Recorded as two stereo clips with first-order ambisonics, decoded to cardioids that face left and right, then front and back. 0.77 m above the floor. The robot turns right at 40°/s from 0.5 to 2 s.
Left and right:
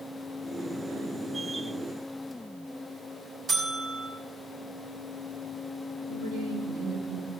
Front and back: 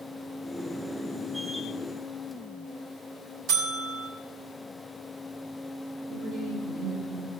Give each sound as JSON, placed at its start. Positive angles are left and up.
{"t": 3.5, "sound": "a buzzer", "azimuth_deg": -150, "distance_m": 3.5}
{"t": 6.1, "sound": "a woman speaking", "azimuth_deg": -100, "distance_m": 6.5}